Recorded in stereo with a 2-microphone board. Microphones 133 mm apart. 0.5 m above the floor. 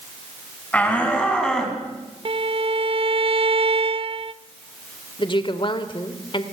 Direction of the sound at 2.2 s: 45° right (ahead or behind).